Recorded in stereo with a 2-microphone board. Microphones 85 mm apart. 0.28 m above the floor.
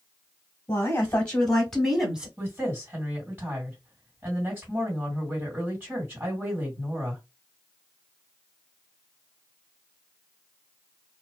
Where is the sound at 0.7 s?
25° left (ahead or behind), 1.3 m; by 2.3 s 10° right (ahead or behind), 1.2 m.